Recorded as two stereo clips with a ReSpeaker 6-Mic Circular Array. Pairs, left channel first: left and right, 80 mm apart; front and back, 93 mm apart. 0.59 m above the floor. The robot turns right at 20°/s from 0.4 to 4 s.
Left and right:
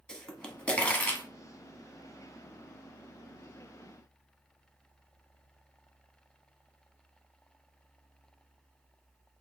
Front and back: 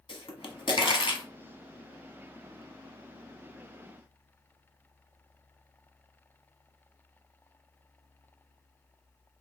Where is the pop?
10° left, 1.1 m; by 1.2 s 25° left, 1.1 m.